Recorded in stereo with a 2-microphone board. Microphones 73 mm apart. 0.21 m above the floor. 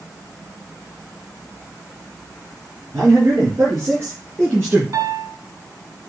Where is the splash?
No splash in this recording.